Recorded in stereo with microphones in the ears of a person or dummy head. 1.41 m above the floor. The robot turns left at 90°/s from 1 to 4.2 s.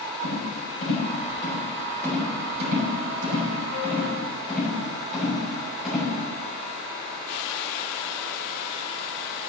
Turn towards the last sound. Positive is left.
turn(degrees=5)  # may be behind; listen again after turning